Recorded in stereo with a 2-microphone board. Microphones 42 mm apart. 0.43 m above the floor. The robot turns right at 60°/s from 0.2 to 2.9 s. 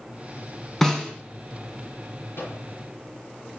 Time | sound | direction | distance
0.8 | a snare drum | 5° left (ahead or behind) | 2.5 m
2.4 | a microwave | 65° left (ahead or behind) | 5.5 m